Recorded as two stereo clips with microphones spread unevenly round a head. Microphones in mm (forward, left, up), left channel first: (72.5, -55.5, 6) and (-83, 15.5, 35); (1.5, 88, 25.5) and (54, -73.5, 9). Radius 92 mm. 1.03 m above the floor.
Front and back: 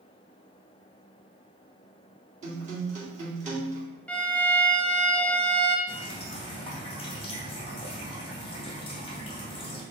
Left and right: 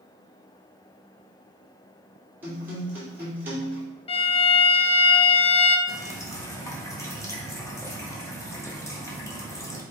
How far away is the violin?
About 0.6 m.